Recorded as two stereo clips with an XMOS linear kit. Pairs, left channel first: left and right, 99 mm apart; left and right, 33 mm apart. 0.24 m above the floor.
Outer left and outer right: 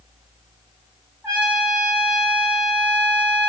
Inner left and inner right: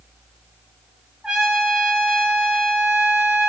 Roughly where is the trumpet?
Centre.